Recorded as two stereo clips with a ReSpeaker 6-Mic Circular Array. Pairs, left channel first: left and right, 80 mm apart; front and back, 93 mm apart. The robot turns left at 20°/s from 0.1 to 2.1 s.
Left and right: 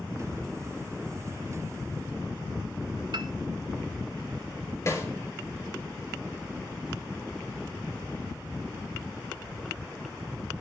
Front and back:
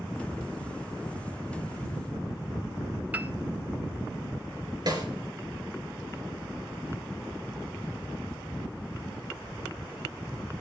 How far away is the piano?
About 0.7 m.